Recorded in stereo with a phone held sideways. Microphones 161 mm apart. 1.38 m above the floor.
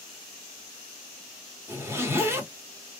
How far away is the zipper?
About 1.1 m.